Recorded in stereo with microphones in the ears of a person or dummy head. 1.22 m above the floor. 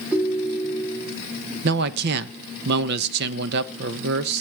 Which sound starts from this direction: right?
A man speaking, at 1.6 s.